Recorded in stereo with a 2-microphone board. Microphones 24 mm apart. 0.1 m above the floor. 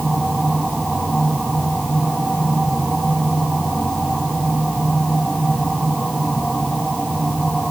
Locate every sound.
Only background noise.